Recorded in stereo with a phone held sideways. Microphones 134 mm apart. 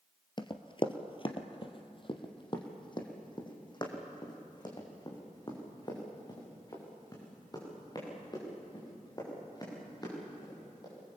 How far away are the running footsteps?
About 1.4 m.